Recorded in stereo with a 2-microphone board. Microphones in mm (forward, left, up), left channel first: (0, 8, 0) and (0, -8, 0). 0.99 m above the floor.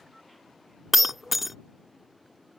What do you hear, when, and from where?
0.9 s breaking glass: 10° right (ahead or behind)